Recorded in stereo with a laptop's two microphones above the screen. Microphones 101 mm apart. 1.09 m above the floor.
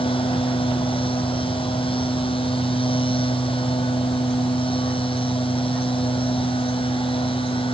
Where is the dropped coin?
I don't hear a dropped coin.